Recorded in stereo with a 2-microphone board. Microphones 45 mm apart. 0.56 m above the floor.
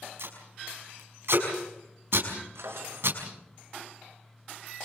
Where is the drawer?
80° right, 4.5 m.